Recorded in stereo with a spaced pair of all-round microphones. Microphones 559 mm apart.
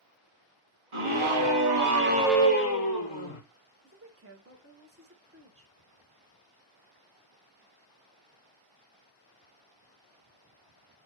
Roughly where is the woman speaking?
Right.